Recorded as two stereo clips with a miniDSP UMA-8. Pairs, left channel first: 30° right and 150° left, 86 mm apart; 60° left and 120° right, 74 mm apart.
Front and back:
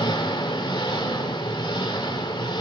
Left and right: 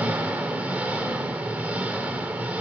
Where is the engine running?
50° right, 2 m.